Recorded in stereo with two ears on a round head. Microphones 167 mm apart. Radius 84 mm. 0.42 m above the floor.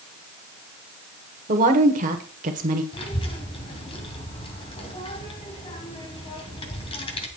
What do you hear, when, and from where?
1.5 s a woman speaking: 45° right (ahead or behind), 1.4 m
2.9 s a child speaking: 30° left (ahead or behind), 2.5 m